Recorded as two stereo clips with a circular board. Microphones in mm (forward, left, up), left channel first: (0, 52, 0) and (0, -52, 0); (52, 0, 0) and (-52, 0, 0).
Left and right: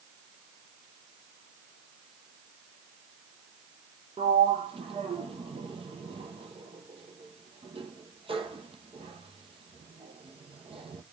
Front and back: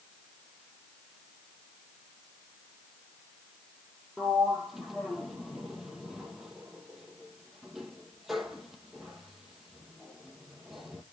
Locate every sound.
4.2 s a sliding door: 95° right, 1.0 m